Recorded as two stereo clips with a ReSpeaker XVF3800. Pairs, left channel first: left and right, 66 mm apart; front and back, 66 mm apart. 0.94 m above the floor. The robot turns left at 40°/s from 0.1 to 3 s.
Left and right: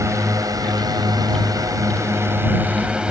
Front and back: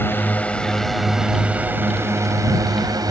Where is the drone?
55° right; by 3.1 s 165° right.